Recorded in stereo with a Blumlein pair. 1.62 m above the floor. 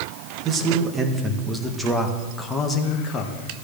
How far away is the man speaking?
About 2.0 m.